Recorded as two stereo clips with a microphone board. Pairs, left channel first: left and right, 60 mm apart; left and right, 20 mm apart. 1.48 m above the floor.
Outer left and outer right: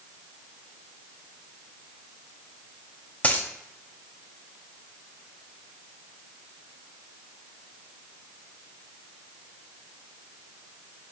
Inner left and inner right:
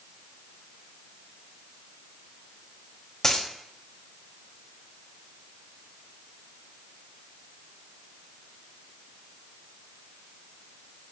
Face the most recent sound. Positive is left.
turn(degrees=25)  # may be behind; listen again after turning